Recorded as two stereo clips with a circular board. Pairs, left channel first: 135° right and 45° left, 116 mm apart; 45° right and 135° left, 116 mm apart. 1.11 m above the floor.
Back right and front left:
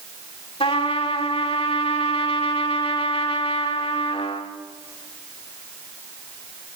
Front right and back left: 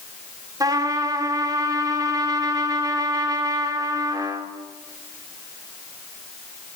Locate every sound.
0.6 s a trumpet: 170° right, 2 m